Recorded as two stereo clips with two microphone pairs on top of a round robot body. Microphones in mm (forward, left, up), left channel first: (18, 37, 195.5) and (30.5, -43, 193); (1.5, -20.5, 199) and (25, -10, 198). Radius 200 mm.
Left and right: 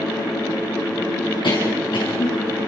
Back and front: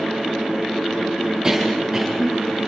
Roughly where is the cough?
Left.